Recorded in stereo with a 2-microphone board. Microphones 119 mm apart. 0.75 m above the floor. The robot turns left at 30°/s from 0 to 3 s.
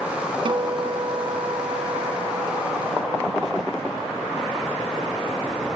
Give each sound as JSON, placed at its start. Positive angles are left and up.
{"t": 0.5, "sound": "a guitar", "azimuth_deg": -65, "distance_m": 0.5}